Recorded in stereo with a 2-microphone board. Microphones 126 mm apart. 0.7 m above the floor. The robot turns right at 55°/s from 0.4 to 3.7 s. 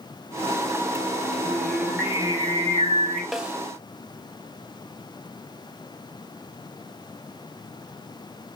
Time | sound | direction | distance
1.4 | singing | 165° left | 4.5 m
3.3 | a snare drum | centre (ahead or behind) | 1.5 m